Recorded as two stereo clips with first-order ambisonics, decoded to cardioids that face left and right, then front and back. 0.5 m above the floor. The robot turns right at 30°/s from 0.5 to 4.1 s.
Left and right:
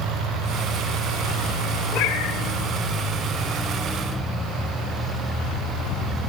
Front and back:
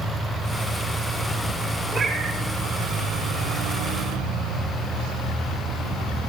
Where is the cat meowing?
110° left, 3 m; by 2.4 s 125° left, 3 m.